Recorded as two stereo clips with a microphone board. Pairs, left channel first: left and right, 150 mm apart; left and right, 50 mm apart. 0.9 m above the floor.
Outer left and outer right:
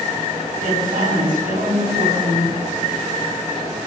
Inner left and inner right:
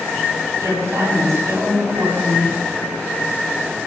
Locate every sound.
0.5 s a woman speaking: 80° right, 8 m